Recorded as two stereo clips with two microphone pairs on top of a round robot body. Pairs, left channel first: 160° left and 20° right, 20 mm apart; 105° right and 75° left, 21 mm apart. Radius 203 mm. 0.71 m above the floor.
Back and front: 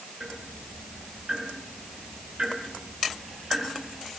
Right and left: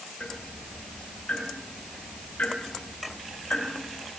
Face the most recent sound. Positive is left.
turn(degrees=-80)